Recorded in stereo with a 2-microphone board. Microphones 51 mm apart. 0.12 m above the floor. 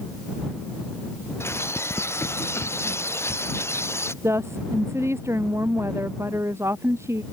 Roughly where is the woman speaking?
Right.